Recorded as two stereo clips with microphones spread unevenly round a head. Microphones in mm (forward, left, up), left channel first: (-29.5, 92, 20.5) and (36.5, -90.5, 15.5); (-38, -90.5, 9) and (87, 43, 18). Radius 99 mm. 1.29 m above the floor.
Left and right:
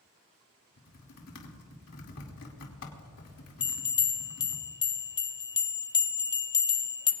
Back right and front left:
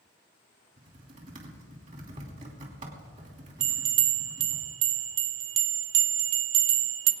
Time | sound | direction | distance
0.8 | typing on a keyboard | 105° left | 2.5 m
3.6 | a bell | 45° left | 1.0 m